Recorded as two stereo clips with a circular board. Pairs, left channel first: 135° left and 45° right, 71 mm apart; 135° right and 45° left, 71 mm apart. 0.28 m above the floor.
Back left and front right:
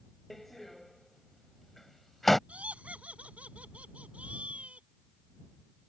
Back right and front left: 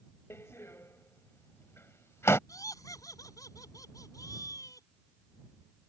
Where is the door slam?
140° right.